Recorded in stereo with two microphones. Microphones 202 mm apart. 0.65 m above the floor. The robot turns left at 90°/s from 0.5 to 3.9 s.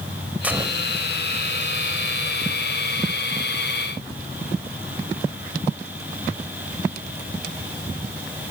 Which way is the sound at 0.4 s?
10° right.